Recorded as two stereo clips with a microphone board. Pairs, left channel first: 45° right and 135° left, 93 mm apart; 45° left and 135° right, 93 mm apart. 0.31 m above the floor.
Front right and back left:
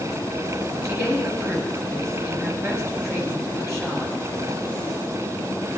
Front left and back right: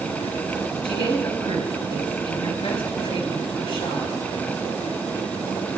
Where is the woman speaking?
75° left, 5.5 m.